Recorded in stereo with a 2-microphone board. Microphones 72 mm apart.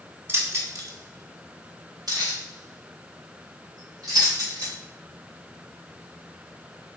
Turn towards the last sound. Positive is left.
turn(degrees=-60)  # may be behind; listen again after turning